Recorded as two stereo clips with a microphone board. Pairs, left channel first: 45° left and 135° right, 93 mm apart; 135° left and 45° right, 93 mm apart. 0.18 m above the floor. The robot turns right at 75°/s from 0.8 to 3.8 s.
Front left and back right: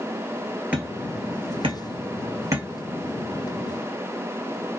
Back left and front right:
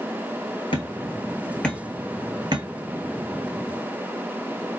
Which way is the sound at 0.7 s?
150° left.